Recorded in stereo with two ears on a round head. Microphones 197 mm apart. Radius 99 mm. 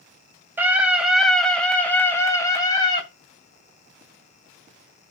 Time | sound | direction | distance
0.6 | a scream | 10° right (ahead or behind) | 3 m